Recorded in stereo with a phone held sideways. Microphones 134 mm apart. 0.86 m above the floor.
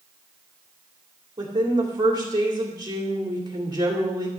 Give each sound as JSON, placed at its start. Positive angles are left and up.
{"t": 1.4, "sound": "a woman speaking", "side_deg": -30, "distance_m": 2.5}